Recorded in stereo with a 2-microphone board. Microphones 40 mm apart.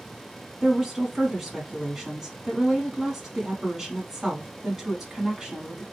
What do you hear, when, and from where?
0.6 s a woman speaking: 10° right (ahead or behind), 1.1 m